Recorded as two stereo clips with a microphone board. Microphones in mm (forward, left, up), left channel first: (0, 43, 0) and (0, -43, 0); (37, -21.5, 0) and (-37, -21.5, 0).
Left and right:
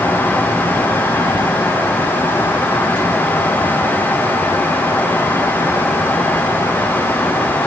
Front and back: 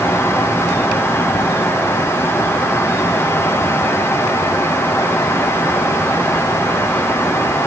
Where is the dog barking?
I don't hear a dog barking.